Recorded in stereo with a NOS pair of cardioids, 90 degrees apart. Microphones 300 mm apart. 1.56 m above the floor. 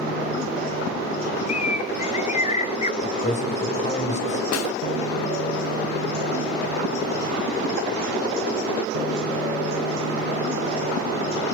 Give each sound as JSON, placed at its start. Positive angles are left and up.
{"t": 1.5, "sound": "a bird", "azimuth_deg": 25, "distance_m": 1.1}
{"t": 3.0, "sound": "a man speaking", "azimuth_deg": 25, "distance_m": 6.0}
{"t": 4.5, "sound": "a snare drum", "azimuth_deg": 60, "distance_m": 0.5}